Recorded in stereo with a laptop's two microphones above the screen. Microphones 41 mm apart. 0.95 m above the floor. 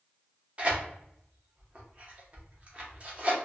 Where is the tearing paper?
35° right (ahead or behind), 0.7 m.